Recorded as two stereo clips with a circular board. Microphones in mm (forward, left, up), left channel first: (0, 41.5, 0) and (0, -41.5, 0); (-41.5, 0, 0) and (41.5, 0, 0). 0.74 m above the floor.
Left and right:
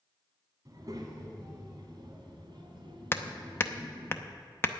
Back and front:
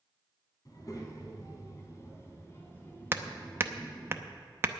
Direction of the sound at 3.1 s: 45° left.